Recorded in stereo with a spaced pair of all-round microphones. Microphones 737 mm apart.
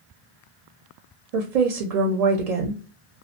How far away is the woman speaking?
About 0.6 m.